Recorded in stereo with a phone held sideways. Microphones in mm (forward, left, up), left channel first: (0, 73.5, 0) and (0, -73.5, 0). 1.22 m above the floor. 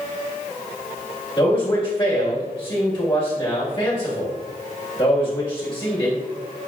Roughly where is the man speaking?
Left.